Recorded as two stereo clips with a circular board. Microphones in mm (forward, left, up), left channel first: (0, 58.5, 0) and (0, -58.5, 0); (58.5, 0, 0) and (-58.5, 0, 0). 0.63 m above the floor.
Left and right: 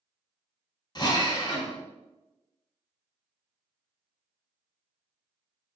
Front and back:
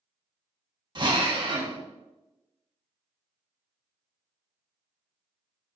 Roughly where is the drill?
Behind left.